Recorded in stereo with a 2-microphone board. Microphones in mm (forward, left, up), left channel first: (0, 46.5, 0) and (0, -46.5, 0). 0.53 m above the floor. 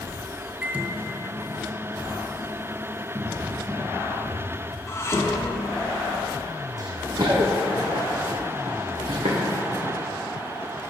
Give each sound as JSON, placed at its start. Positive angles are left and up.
{"t": 0.6, "sound": "a microwave", "side_deg": -15, "distance_m": 0.7}
{"t": 3.1, "sound": "a cupboard door", "side_deg": -60, "distance_m": 2.0}
{"t": 4.9, "sound": "dishes clattering", "side_deg": 30, "distance_m": 0.6}
{"t": 6.8, "sound": "running footsteps", "side_deg": -45, "distance_m": 1.7}